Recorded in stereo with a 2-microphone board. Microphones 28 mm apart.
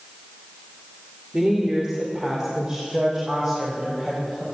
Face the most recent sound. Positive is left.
turn(degrees=-20)  # may be behind; listen again after turning